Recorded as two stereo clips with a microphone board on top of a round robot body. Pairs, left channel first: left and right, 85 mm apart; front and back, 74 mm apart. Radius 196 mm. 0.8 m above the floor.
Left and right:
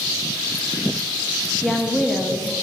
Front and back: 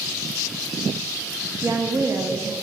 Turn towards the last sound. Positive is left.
turn(degrees=175)